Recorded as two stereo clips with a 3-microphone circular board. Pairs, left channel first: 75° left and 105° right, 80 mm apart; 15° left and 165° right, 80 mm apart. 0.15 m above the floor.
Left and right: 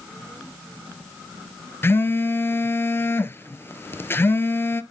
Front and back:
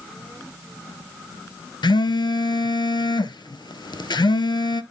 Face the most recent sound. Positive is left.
turn(degrees=15)